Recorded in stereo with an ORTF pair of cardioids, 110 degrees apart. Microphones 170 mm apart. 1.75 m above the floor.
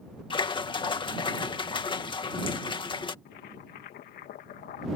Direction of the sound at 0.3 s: 30° left.